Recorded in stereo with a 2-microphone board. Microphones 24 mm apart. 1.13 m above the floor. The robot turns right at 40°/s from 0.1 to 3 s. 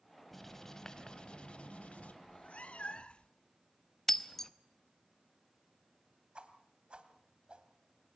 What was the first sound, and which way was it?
Writing, 5° left.